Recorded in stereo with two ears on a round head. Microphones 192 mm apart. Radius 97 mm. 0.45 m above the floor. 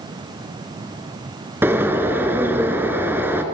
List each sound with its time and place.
1.6 s a bird: 10° right (ahead or behind), 1.4 m